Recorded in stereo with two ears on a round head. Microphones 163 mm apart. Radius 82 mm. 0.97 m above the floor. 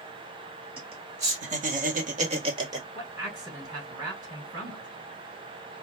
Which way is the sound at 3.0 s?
25° right (ahead or behind).